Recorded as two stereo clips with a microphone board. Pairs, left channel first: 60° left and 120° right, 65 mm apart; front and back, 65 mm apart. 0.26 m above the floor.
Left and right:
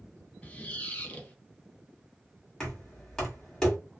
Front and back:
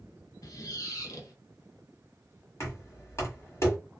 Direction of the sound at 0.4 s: 5° right.